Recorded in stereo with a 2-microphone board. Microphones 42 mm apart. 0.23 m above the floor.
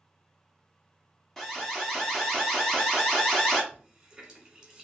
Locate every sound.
1.4 s an alarm: 5° left (ahead or behind), 1.1 m
3.7 s a running tap: 20° right (ahead or behind), 1.3 m